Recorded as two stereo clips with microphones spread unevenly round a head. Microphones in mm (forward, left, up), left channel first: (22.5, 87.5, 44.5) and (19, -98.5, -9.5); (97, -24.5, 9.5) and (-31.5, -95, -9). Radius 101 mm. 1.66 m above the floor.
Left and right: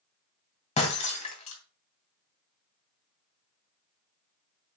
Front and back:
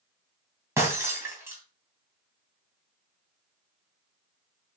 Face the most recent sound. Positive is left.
turn(degrees=130)